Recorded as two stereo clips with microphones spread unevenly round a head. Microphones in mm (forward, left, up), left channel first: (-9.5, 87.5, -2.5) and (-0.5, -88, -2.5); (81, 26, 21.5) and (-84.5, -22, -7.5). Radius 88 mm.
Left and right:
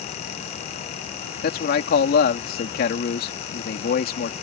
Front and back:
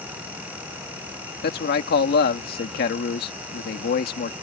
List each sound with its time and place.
1.4 s a man speaking: 55° left